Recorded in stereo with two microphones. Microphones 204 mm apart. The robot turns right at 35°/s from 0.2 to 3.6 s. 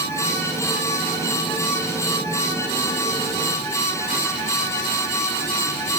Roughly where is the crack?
No crack in this recording.